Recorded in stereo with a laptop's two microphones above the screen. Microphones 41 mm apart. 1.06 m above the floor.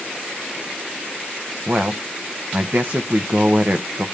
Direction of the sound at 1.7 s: 50° right (ahead or behind).